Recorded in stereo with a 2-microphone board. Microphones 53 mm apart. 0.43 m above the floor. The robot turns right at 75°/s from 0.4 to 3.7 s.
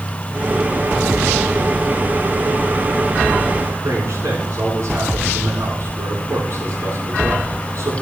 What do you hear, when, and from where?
3.8 s a man speaking: 65° right (ahead or behind), 3 m